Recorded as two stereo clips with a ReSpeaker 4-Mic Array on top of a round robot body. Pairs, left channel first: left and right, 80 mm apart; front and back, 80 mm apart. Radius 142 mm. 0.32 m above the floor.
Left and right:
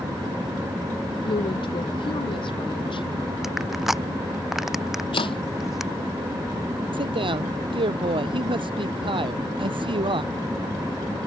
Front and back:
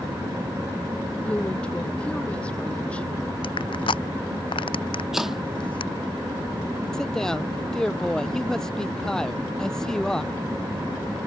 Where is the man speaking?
85° right.